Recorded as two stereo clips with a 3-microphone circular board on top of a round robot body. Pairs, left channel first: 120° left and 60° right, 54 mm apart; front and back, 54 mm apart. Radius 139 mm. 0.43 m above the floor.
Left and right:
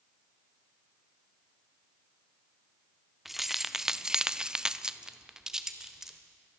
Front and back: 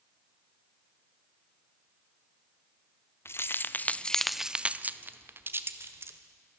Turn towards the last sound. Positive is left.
turn(degrees=-140)